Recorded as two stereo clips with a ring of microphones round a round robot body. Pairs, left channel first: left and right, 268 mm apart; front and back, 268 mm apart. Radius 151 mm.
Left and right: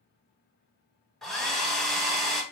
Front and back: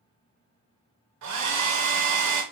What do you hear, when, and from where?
1.2 s a hair dryer: straight behind, 2 m